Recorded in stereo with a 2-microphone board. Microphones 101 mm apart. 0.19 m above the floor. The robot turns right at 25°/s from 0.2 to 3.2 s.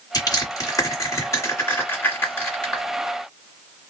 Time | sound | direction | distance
0.1 | crushing | 40° left (ahead or behind) | 1.7 m